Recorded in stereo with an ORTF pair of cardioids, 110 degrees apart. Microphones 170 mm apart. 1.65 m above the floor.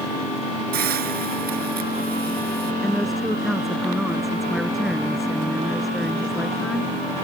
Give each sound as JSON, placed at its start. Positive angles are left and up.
{"t": 0.7, "sound": "a hiss", "azimuth_deg": -60}
{"t": 2.8, "sound": "a woman speaking", "azimuth_deg": 0}